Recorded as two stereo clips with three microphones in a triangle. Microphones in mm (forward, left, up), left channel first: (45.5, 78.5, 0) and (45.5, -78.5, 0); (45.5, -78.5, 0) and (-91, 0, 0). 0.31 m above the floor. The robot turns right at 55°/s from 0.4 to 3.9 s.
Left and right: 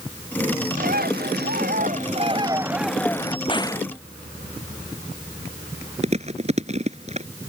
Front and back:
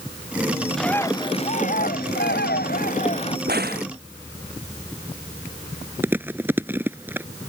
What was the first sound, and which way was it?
A bird, 120° right.